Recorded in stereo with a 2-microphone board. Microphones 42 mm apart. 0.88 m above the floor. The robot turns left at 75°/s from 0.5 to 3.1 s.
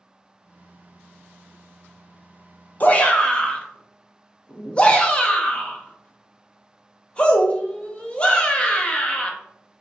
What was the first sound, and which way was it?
A shout, 35° left (ahead or behind).